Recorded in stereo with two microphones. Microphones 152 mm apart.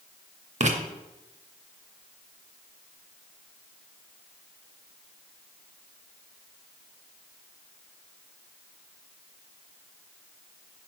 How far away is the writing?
About 0.5 m.